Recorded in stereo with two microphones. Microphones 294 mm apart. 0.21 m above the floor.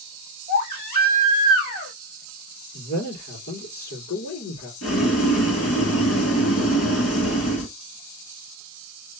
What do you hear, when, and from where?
0.5 s a baby crying: 85° left, 4 m
2.7 s a man speaking: 70° left (ahead or behind), 4 m
4.8 s boiling: 55° left (ahead or behind), 2 m